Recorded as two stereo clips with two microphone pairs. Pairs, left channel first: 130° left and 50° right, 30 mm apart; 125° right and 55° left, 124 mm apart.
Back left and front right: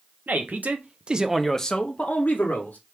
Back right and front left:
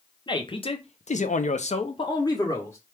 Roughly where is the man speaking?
Right.